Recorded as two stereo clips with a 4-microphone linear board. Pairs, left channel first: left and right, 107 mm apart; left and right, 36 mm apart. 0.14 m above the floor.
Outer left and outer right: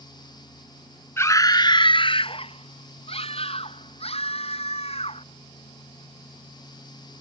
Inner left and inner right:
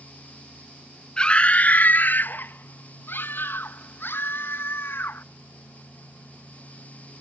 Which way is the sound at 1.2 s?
25° left (ahead or behind).